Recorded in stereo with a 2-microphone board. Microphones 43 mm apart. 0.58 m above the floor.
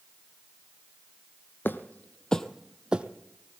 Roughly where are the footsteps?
Left.